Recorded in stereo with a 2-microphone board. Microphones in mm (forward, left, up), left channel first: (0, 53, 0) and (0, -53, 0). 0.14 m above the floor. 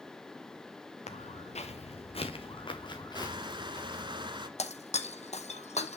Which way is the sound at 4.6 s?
85° left.